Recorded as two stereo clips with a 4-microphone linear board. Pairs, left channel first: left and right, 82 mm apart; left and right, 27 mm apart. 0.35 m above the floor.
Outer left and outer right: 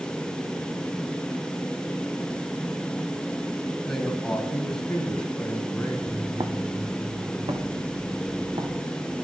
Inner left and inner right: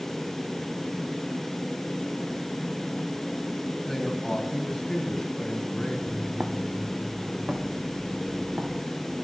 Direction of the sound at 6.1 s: 35° right (ahead or behind).